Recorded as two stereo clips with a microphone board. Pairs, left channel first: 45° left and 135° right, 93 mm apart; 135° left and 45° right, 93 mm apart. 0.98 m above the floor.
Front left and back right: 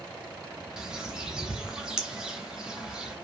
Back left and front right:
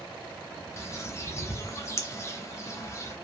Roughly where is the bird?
Behind left.